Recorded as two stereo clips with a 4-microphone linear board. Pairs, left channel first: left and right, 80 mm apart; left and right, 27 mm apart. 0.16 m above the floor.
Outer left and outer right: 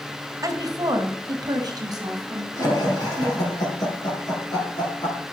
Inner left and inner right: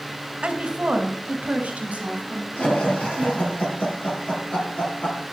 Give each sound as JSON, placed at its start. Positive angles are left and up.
{"t": 0.4, "sound": "a woman speaking", "side_deg": -45, "distance_m": 1.7}
{"t": 2.6, "sound": "laughter", "side_deg": 50, "distance_m": 3.5}